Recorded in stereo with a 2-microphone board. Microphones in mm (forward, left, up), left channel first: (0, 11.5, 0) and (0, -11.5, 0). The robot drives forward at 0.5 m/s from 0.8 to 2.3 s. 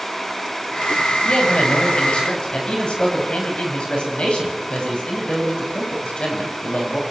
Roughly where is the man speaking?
Left.